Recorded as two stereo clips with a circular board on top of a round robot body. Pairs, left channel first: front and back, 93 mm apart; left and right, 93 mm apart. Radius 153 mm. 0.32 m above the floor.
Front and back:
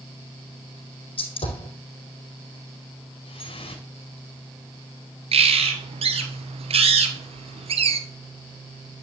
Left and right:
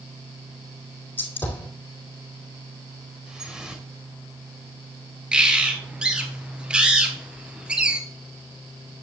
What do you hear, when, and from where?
1.2 s a gunshot: 20° left, 4 m
3.3 s dripping: 5° right, 3 m
5.3 s a bird: 170° right, 1.8 m